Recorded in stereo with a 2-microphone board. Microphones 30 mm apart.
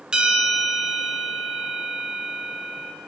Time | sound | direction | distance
0.1 | a bell | 30° right (ahead or behind) | 2 m